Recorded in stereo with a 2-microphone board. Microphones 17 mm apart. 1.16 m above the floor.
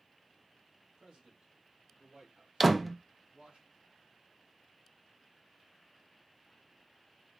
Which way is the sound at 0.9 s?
75° right (ahead or behind).